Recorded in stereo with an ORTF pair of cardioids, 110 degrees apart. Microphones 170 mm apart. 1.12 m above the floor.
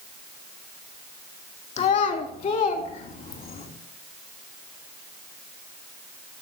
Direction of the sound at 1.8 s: 45° left.